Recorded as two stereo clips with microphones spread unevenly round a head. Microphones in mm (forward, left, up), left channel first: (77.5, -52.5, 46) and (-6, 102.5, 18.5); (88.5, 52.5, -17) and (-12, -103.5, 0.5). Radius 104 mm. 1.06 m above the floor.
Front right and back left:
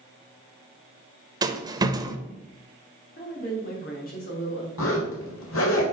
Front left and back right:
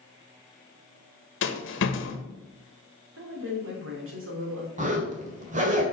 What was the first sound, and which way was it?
A rattle, 55° left.